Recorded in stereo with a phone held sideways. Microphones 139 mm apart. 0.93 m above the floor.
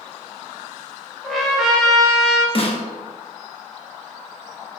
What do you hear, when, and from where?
1.2 s a trumpet: centre (ahead or behind), 0.7 m
2.5 s a snare drum: 45° left (ahead or behind), 0.5 m